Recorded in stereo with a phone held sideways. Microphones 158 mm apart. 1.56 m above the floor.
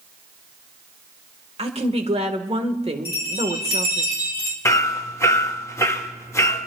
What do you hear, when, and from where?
1.6 s a woman speaking: 40° right (ahead or behind), 1.5 m
3.0 s a bell: 25° left (ahead or behind), 2.5 m
4.7 s hammering: 20° left (ahead or behind), 1.0 m